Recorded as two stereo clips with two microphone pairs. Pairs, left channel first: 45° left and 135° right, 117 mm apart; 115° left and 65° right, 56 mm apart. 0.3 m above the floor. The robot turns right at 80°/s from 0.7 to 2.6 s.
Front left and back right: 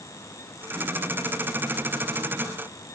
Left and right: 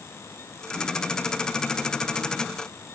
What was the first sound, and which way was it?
Only background noise.